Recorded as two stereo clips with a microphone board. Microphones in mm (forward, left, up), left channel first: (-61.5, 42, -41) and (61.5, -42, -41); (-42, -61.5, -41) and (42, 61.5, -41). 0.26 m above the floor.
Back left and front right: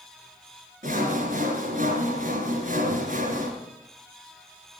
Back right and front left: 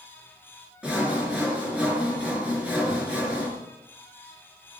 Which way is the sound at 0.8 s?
25° right.